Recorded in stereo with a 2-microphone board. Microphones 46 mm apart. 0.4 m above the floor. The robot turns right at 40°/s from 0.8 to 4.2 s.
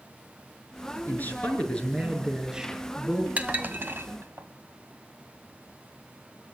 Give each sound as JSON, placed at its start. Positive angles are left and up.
{"t": 1.1, "sound": "a man speaking", "azimuth_deg": 135, "distance_m": 6.5}
{"t": 3.4, "sound": "dishes clattering", "side_deg": -35, "distance_m": 1.8}